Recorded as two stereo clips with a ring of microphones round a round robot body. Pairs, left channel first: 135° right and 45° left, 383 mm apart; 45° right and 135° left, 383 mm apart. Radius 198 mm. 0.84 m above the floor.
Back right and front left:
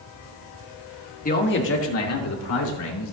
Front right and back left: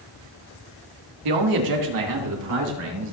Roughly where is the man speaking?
Behind left.